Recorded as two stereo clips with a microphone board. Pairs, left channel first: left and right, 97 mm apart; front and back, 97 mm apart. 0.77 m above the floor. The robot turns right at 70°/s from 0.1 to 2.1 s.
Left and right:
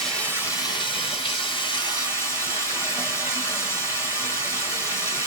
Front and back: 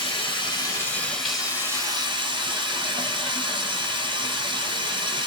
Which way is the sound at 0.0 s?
10° left.